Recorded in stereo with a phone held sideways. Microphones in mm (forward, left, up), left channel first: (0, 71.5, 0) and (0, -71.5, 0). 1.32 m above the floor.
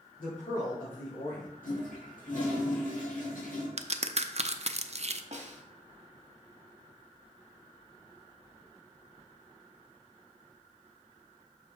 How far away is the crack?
About 0.5 m.